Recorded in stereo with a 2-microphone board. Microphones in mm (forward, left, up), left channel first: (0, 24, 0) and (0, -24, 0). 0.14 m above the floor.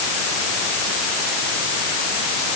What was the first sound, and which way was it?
Only background noise.